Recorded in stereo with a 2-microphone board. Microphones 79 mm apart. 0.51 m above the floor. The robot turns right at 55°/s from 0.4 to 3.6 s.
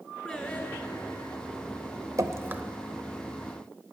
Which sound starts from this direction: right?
Dripping, at 2.2 s.